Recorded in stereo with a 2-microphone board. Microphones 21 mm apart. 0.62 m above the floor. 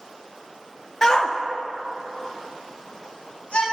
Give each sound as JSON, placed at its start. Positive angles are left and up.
{"t": 1.0, "sound": "a shout", "side_deg": 30, "distance_m": 0.6}